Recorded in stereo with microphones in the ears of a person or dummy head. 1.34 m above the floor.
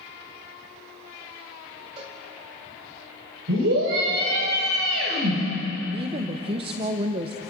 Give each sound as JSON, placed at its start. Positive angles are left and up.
{"t": 2.0, "sound": "a cowbell", "side_deg": -35, "distance_m": 2.5}
{"t": 3.5, "sound": "a scream", "side_deg": -80, "distance_m": 7.5}
{"t": 5.9, "sound": "a woman speaking", "side_deg": -35, "distance_m": 1.1}